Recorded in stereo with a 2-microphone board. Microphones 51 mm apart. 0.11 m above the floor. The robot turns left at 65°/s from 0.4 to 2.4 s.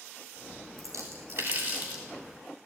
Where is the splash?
75° right (ahead or behind), 8.5 m; by 2.0 s 20° right (ahead or behind), 8.5 m.